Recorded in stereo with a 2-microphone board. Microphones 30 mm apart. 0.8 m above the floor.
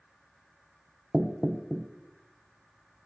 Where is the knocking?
25° right (ahead or behind), 0.6 m.